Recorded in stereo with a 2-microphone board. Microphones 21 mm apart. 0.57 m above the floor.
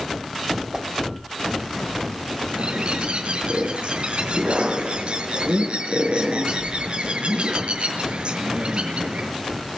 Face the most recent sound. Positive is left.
turn(degrees=-60)  # may be behind; listen again after turning